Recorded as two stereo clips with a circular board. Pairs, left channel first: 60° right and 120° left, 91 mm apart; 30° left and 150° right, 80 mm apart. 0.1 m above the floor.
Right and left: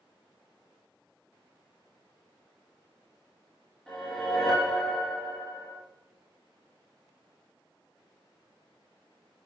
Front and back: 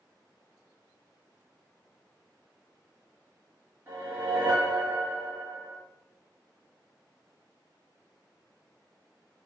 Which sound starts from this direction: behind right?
A whoosh, at 3.9 s.